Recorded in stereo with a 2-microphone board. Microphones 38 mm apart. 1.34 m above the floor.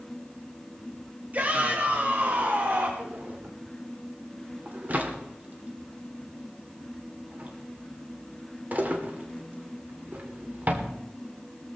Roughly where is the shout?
Right.